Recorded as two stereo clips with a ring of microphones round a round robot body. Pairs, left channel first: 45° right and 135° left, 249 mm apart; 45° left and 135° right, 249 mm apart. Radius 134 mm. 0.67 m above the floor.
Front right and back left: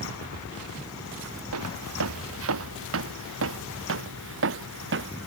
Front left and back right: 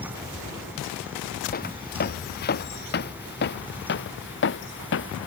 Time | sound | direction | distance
1.5 | footsteps | 100° left | ?